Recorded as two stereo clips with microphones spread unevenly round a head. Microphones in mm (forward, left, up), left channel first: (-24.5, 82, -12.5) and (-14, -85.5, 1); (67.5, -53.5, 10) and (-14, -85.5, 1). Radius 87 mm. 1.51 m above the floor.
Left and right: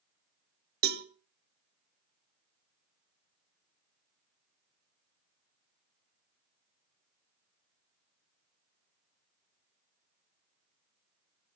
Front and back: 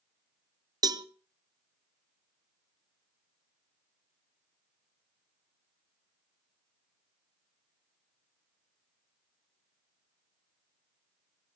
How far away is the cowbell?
About 0.8 m.